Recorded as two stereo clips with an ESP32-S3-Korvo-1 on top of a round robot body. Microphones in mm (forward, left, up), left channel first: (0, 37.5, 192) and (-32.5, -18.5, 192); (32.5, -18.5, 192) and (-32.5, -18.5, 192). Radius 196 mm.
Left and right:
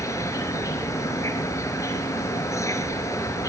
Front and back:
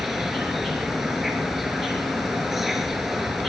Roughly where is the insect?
Left.